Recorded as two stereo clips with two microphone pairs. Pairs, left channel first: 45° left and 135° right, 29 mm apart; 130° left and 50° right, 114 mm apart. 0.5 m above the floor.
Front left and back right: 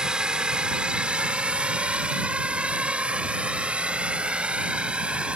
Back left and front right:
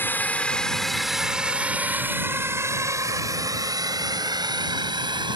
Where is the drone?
170° right; by 5.4 s 90° right.